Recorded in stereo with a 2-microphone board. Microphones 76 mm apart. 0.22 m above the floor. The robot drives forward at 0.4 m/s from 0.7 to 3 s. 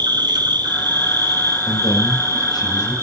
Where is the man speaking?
75° left (ahead or behind), 8.5 m.